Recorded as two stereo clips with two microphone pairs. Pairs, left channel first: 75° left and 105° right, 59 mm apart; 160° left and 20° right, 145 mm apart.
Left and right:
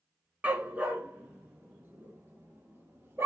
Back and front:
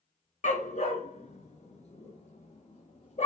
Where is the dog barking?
170° right, 1.8 m; by 3.3 s 155° right, 4 m.